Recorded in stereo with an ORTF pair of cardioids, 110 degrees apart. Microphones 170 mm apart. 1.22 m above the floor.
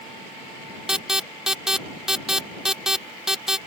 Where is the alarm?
5° right.